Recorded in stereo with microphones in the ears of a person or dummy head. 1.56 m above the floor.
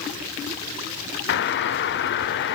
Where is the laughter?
No laughter in this recording.